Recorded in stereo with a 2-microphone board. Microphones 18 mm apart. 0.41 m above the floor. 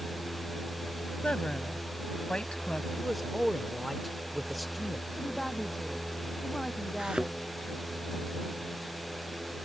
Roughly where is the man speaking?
Centre.